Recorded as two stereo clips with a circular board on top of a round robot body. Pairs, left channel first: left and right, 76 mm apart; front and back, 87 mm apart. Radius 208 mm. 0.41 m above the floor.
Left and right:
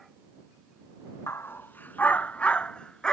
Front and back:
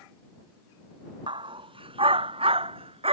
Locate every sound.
1.3 s a dog barking: 150° left; by 3.1 s 170° left